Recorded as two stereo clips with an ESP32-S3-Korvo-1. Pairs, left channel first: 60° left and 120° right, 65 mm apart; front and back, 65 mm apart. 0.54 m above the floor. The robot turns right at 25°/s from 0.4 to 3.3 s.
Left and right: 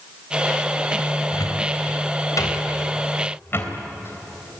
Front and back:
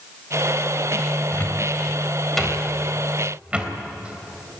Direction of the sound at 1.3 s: 60° left.